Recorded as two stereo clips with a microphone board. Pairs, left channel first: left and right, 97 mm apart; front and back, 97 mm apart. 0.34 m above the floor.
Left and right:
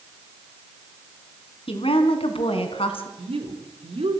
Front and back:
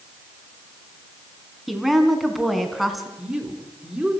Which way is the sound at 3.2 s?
95° right.